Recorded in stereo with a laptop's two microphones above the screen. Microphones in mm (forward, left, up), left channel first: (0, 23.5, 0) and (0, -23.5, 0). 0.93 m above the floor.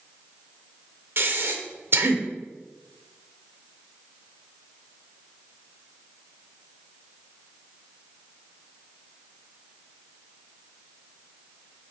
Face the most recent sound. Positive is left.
turn(degrees=-55)  # may be behind; listen again after turning